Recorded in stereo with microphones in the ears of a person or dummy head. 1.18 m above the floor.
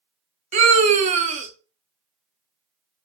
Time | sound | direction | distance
0.5 | a scream | 40° right (ahead or behind) | 0.7 m